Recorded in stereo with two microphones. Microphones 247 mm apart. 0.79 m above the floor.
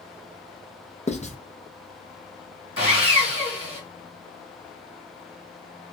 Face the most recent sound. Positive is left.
turn(degrees=55)  # may be behind; listen again after turning